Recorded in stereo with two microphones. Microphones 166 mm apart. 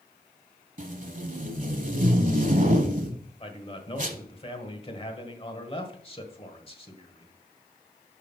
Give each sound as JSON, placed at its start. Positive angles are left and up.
{"t": 0.8, "sound": "tape being pulled", "side_deg": -50, "distance_m": 0.9}
{"t": 3.4, "sound": "a man speaking", "side_deg": 35, "distance_m": 1.2}